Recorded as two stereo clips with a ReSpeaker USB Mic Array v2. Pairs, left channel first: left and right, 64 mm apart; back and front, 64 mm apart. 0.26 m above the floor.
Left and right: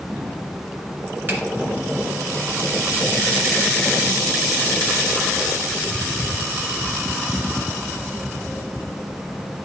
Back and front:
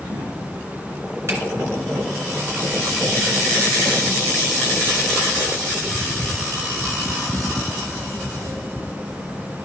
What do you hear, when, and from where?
1.3 s a finger snap: 40° right, 2.5 m